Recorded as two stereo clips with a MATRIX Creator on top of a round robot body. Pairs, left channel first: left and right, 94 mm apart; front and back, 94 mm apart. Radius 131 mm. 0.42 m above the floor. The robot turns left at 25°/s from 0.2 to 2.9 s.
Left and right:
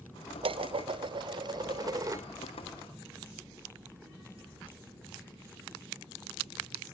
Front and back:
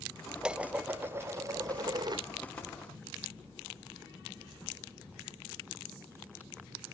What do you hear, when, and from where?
0.4 s dishes clattering: 100° right, 1.1 m; by 2.2 s 145° right, 1.1 m